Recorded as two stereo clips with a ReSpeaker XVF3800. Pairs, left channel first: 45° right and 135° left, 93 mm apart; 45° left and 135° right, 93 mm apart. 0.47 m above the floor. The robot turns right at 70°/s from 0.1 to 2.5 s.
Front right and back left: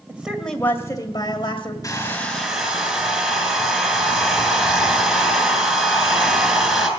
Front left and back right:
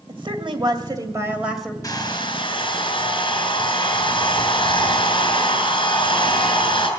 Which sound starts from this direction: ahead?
A hair dryer, at 1.8 s.